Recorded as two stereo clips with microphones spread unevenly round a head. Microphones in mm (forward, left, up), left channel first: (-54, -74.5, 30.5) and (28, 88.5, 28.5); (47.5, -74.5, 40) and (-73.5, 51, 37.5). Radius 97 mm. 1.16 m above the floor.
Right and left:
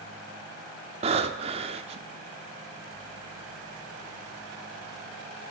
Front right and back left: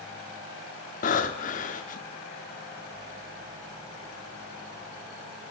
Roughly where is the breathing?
Ahead.